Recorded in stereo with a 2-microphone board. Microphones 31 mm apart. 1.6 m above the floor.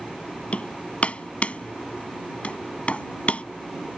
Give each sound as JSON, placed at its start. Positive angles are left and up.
{"t": 0.5, "sound": "hammering", "side_deg": 45}